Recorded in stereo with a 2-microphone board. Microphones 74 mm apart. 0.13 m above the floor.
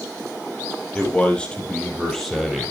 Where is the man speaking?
20° left (ahead or behind), 5.5 m; by 2.7 s centre (ahead or behind), 4.5 m.